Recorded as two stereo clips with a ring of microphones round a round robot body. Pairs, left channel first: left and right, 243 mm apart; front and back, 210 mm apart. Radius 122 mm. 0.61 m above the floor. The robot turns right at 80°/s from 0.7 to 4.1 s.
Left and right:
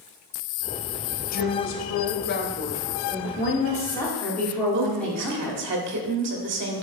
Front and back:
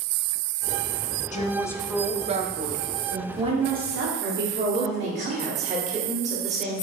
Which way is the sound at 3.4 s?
115° left.